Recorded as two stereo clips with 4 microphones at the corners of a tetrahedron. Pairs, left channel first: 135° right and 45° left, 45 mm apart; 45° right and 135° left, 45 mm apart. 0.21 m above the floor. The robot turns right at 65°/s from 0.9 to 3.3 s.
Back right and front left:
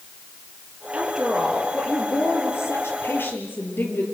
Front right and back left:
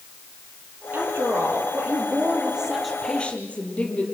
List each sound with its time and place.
0.9 s a woman speaking: 105° left, 4.5 m; by 4.0 s 100° right, 4.5 m